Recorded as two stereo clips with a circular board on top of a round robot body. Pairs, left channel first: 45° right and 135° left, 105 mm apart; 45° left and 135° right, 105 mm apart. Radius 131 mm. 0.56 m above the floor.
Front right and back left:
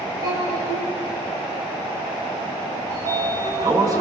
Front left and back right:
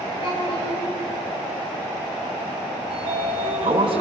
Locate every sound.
0.2 s a child speaking: 85° left, 7.5 m
2.9 s a sliding door: 170° right, 4 m